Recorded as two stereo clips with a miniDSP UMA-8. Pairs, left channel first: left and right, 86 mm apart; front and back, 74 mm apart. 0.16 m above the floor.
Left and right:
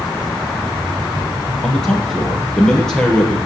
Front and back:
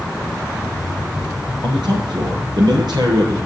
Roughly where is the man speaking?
Behind.